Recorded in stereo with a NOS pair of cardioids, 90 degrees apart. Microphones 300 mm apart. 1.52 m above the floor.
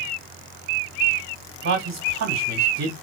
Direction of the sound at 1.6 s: 60° right.